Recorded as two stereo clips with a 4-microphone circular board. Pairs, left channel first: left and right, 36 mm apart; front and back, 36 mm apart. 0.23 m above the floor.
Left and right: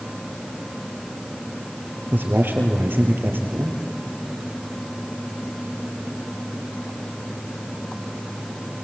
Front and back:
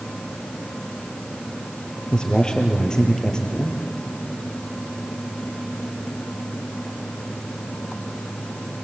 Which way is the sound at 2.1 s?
70° right.